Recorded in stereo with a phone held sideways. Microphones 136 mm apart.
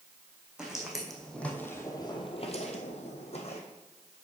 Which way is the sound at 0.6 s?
5° right (ahead or behind).